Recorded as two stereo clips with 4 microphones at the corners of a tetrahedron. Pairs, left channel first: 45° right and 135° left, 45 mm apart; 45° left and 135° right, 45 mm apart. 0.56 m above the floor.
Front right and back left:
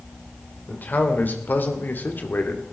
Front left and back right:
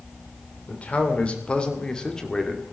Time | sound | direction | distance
0.7 | a man speaking | 5° right | 2.5 m